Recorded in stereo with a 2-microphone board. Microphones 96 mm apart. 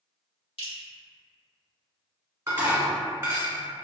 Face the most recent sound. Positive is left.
turn(degrees=-30)  # may be behind; listen again after turning